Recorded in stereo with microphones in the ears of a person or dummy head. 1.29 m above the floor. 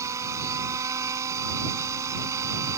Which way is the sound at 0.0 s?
15° right (ahead or behind).